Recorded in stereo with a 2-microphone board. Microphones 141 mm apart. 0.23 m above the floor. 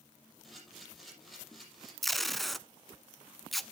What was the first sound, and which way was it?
A camera shutter, centre (ahead or behind).